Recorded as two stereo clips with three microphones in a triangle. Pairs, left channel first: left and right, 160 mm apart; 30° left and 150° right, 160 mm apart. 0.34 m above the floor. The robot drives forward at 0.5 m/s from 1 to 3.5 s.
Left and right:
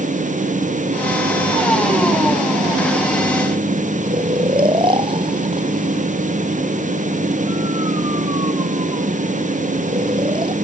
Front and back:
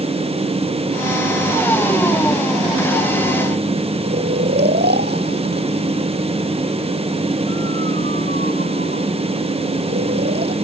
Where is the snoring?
150° right.